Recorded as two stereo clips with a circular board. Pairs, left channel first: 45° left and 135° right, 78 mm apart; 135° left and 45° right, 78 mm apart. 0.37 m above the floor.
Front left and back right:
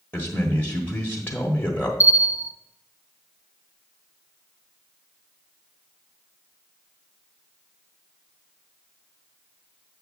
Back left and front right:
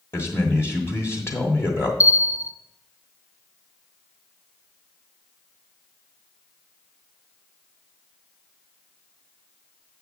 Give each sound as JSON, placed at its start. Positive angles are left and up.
{"t": 0.1, "sound": "a man speaking", "azimuth_deg": 100, "distance_m": 1.2}
{"t": 2.0, "sound": "a bell", "azimuth_deg": 90, "distance_m": 0.5}